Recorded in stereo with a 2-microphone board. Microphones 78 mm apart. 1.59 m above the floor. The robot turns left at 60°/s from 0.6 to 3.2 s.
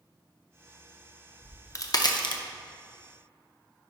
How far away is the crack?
About 0.6 m.